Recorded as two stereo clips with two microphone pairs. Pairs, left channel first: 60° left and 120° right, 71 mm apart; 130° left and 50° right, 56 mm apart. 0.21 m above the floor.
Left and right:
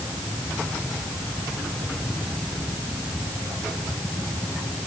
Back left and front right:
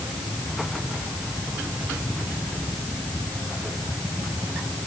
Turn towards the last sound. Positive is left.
No sound to turn to.